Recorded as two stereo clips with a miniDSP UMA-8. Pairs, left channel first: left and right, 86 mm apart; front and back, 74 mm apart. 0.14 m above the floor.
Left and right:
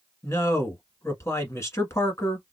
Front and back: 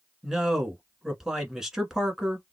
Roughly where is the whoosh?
No whoosh in this recording.